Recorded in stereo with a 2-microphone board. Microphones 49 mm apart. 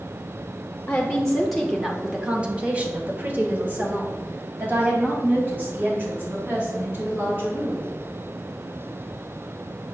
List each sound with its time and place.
0.9 s a woman speaking: 20° left (ahead or behind), 1.0 m; by 7.8 s 45° right (ahead or behind), 4 m